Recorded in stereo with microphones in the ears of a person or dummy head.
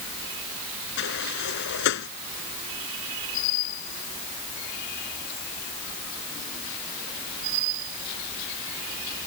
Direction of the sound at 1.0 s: 65° left (ahead or behind).